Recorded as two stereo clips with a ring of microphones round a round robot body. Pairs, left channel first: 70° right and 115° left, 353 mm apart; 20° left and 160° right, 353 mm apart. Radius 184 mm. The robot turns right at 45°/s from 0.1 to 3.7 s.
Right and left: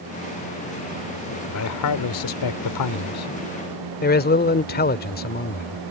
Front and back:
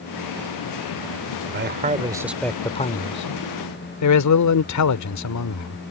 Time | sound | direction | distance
1.5 | a man speaking | 110° right | ?